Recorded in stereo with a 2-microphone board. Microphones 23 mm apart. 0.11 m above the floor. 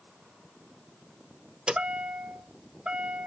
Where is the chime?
50° right (ahead or behind), 0.8 m.